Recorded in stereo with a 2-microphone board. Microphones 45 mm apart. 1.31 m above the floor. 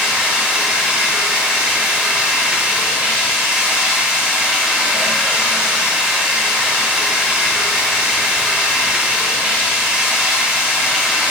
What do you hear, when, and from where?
0.0 s running water: 25° right (ahead or behind), 2 m